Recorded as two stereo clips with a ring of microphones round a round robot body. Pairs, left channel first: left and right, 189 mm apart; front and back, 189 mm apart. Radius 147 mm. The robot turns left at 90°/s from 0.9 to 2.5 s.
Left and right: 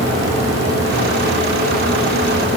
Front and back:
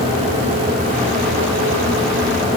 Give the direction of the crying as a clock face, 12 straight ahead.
I don't hear crying.